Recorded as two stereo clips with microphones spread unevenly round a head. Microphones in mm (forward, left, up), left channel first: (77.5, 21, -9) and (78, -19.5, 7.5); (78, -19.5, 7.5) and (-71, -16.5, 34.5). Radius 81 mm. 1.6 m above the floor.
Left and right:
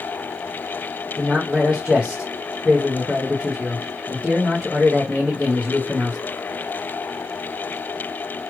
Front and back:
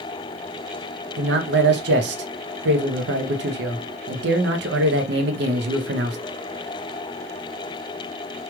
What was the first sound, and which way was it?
A man speaking, 170° right.